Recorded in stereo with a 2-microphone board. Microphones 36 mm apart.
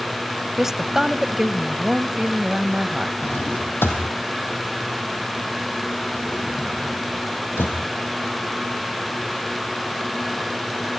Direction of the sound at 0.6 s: 10° right (ahead or behind).